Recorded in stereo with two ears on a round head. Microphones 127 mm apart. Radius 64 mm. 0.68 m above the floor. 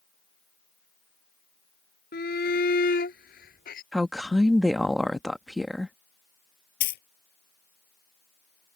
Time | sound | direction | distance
2.1 | a shout | 70° left (ahead or behind) | ?
3.9 | a woman speaking | centre (ahead or behind) | ?
6.8 | a dropped coin | 75° left (ahead or behind) | ?